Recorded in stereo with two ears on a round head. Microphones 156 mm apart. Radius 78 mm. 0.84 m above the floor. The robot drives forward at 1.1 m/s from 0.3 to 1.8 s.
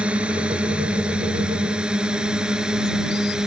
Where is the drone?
5° right (ahead or behind).